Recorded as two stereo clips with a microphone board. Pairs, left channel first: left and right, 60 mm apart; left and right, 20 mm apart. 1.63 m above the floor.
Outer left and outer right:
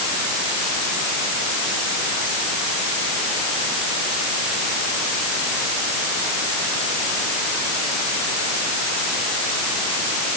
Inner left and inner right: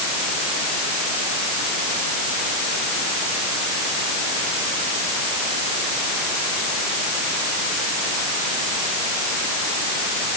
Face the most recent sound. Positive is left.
No sound to turn to.